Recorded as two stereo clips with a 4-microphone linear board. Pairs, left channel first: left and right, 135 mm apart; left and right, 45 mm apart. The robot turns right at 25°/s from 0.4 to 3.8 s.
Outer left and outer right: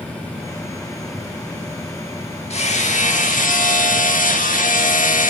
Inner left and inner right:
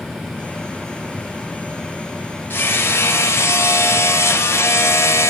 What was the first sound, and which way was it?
Hammering, 55° left.